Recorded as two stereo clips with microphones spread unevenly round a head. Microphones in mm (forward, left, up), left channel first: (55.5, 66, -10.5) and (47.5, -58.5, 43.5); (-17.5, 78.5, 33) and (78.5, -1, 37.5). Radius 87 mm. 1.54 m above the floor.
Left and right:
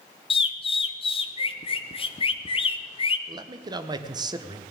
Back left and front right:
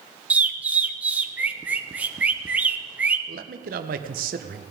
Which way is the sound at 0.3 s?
40° left.